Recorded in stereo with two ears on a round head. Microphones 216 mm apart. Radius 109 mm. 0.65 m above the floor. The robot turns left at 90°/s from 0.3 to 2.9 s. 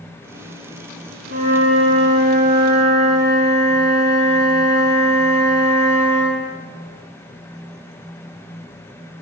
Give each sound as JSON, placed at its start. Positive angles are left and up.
{"t": 1.3, "sound": "a flute", "azimuth_deg": -90, "distance_m": 1.5}